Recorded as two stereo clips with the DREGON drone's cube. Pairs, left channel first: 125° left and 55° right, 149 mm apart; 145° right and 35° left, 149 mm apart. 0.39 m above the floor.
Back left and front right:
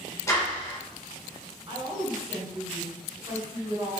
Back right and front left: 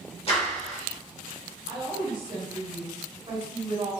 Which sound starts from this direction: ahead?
A woman speaking, at 1.7 s.